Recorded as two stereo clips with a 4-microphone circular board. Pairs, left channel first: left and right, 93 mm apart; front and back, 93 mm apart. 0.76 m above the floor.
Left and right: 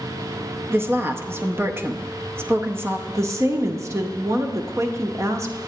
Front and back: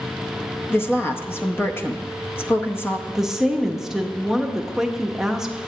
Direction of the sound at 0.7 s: 45° right.